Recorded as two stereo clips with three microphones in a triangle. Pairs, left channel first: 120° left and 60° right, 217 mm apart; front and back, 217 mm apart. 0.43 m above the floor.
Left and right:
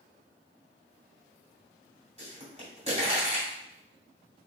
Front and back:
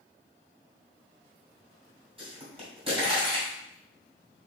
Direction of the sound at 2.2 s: 120° right.